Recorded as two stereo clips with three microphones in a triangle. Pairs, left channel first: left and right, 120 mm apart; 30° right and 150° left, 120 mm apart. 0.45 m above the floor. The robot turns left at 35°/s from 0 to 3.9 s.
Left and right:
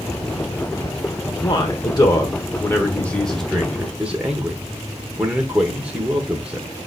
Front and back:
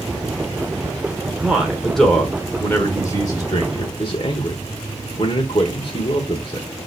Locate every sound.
1.4 s a man speaking: 75° left, 1.1 m; by 6.7 s 15° right, 1.1 m